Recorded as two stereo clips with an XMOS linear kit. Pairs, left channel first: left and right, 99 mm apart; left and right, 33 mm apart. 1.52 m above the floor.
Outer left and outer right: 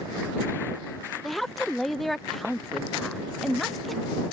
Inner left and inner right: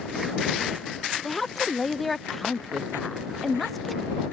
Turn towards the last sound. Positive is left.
turn(degrees=0)  # may be behind; listen again after turning